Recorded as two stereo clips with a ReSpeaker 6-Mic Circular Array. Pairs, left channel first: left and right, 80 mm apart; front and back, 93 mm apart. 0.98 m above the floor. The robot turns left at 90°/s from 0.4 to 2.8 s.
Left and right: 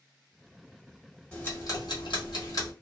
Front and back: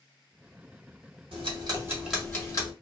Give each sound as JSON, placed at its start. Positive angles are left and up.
{"t": 1.3, "sound": "ticking", "azimuth_deg": 165, "distance_m": 1.2}